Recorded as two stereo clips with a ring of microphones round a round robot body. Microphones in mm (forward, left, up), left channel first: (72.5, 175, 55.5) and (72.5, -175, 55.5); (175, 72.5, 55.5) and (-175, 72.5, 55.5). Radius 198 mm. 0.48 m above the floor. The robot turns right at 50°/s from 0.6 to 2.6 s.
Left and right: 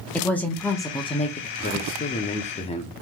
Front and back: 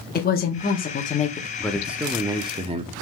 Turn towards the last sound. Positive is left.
turn(degrees=135)